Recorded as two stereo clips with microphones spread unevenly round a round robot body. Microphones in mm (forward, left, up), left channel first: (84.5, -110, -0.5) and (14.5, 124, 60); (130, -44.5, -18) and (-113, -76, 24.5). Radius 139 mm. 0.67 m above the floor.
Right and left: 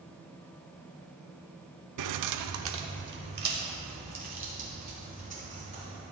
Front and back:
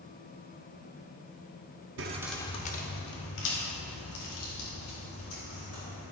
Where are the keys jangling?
140° left, 0.6 m; by 6.0 s 45° left, 6 m.